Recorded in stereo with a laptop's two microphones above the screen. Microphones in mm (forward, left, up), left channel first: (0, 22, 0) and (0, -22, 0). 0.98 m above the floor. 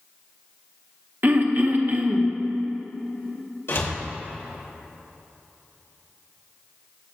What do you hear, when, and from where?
1.2 s throat clearing: 50° right (ahead or behind), 0.7 m
3.7 s a door slam: 70° left (ahead or behind), 3 m